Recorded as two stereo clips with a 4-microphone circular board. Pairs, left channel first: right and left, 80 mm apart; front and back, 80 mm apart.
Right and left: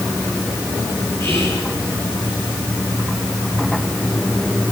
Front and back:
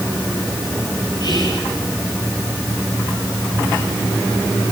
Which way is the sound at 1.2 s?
35° right.